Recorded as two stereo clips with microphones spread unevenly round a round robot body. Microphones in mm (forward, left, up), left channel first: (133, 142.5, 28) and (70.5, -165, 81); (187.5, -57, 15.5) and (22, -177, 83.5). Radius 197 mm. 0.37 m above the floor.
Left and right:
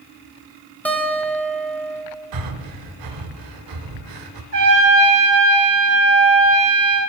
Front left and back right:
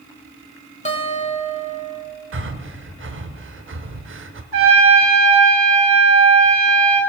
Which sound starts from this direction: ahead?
A guitar, at 0.8 s.